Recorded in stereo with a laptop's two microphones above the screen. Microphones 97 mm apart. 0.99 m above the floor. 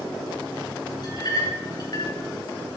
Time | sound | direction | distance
1.0 | a clink | 45° left (ahead or behind) | 2.5 m